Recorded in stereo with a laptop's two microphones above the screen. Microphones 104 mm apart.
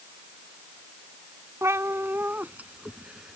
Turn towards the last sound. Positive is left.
turn(degrees=-5)  # may be behind; listen again after turning